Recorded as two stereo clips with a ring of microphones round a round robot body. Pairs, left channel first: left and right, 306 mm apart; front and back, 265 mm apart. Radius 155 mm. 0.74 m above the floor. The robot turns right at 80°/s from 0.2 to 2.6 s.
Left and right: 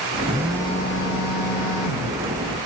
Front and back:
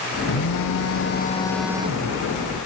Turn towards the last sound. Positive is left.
turn(degrees=170)